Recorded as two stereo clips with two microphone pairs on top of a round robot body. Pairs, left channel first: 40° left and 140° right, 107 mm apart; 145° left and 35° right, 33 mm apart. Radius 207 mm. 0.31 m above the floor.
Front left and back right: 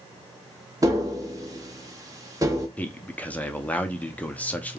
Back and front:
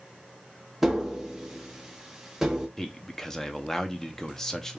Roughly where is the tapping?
Right.